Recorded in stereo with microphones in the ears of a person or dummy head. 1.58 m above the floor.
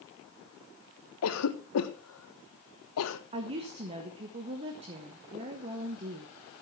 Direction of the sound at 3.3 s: 35° right (ahead or behind).